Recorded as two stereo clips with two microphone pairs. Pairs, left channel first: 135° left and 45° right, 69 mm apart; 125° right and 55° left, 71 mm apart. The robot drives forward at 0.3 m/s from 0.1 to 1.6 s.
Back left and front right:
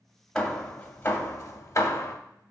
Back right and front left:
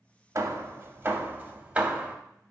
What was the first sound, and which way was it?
Hammering, 65° left.